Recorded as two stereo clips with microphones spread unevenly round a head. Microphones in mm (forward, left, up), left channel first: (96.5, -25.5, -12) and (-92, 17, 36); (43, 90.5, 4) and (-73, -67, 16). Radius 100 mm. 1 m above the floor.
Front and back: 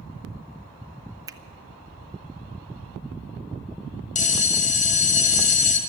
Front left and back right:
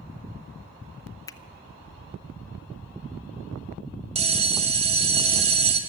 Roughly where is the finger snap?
Left.